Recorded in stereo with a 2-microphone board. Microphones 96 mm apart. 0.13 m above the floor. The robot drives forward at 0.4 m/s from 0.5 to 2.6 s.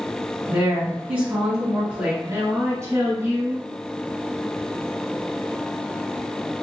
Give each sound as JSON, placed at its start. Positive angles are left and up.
{"t": 0.5, "sound": "a woman speaking", "side_deg": -15, "distance_m": 1.5}
{"t": 2.2, "sound": "a woman speaking", "side_deg": -30, "distance_m": 1.5}